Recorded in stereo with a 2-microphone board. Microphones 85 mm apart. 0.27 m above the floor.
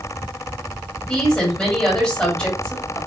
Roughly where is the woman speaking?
Centre.